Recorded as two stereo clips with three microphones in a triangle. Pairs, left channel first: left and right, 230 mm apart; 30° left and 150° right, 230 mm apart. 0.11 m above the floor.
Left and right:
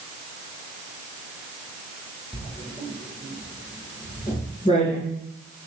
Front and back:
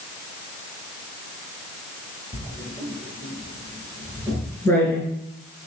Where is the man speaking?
I don't hear a man speaking.